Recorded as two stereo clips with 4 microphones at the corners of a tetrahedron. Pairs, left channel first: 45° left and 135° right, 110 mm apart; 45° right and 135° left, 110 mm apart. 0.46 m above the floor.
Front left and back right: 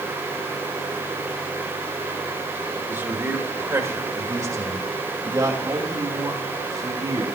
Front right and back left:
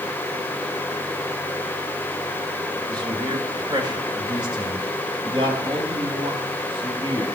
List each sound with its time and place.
2.9 s a man speaking: 165° left, 1.8 m; by 7.2 s 170° left, 4.5 m